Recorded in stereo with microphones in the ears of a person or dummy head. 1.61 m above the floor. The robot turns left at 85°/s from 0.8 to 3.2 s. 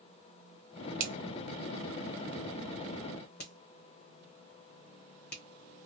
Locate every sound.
1.0 s a finger snap: 55° right (ahead or behind), 1.1 m; by 5.4 s 60° left (ahead or behind), 1.1 m